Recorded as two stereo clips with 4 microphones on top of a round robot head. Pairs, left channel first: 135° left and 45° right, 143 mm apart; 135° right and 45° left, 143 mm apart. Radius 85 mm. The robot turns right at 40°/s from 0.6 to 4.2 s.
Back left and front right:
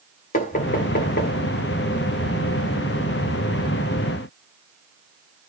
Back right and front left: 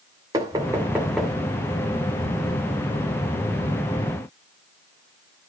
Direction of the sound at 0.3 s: 110° left.